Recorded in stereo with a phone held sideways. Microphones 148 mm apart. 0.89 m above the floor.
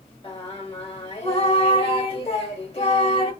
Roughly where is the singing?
Left.